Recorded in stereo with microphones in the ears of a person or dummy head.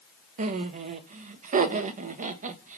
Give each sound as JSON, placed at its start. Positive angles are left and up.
{"t": 0.4, "sound": "laughter", "side_deg": -40, "distance_m": 0.5}